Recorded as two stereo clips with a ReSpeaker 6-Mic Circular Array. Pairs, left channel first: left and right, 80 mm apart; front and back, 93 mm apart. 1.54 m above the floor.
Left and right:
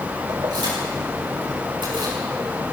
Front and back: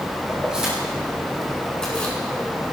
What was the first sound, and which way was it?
Keys jangling, 100° right.